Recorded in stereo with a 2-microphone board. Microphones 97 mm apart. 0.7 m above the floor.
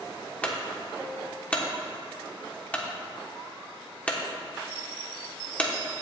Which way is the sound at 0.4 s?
15° left (ahead or behind).